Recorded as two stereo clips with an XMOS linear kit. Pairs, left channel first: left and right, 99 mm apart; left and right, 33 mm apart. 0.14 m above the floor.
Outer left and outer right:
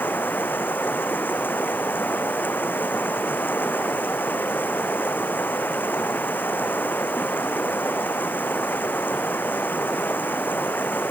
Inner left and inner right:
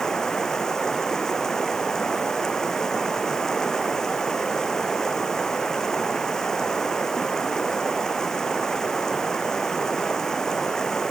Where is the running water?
20° left (ahead or behind).